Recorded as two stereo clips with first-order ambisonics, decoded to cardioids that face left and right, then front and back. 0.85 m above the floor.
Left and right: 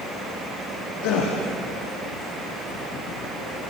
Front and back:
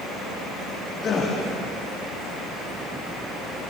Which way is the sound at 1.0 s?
70° left.